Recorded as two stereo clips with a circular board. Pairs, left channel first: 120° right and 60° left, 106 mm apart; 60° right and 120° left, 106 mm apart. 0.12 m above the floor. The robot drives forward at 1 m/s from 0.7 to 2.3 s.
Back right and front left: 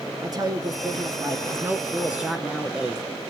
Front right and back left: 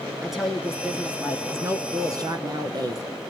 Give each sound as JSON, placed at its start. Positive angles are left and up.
{"t": 0.2, "sound": "a woman speaking", "azimuth_deg": 35, "distance_m": 1.5}